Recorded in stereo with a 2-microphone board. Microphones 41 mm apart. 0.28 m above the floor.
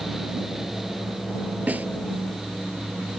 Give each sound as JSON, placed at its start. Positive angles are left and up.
{"t": 1.7, "sound": "a snare drum", "side_deg": -40}